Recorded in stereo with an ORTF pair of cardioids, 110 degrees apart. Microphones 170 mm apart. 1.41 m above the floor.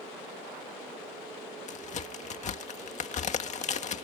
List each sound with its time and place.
1.7 s a crack: 45° left